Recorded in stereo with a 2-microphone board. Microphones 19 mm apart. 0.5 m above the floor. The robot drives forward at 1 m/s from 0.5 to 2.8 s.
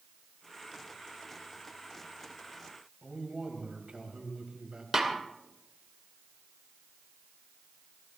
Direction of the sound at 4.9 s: 30° right (ahead or behind).